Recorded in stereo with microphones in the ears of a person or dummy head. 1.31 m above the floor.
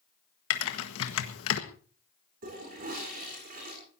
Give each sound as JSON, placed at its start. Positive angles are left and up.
{"t": 0.5, "sound": "typing on a keyboard", "side_deg": 70, "distance_m": 1.5}
{"t": 2.4, "sound": "a toilet flushing", "side_deg": -45, "distance_m": 7.5}